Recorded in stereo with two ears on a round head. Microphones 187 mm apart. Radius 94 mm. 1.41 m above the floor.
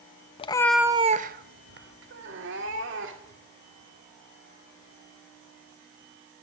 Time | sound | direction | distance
0.4 | a cat meowing | 25° left (ahead or behind) | 0.7 m